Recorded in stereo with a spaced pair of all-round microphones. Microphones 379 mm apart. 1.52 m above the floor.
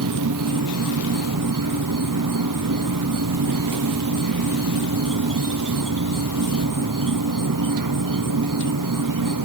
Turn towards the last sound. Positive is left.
turn(degrees=-55)  # may be behind; listen again after turning